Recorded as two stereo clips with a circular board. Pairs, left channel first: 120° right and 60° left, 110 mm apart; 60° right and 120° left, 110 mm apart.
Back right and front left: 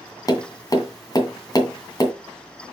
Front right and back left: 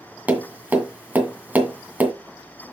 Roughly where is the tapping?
Behind.